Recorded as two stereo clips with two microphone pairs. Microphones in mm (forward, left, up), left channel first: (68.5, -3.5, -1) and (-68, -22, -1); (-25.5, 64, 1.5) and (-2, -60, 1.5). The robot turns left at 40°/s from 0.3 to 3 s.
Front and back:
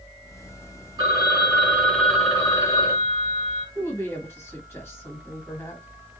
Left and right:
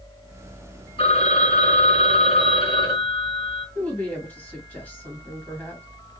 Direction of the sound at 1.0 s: 135° left.